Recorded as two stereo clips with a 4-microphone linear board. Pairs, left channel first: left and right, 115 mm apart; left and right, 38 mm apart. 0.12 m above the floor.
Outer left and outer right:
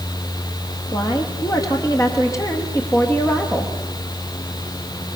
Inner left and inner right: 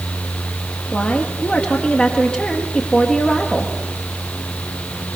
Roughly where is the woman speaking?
Left.